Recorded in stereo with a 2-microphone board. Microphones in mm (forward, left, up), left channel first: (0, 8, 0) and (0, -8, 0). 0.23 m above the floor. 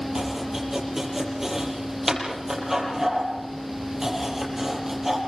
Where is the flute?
No flute in this recording.